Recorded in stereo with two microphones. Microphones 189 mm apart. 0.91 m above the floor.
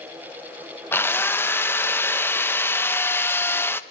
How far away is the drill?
About 0.8 m.